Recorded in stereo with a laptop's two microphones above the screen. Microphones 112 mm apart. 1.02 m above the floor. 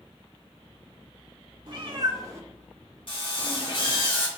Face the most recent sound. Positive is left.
turn(degrees=50)  # may be behind; listen again after turning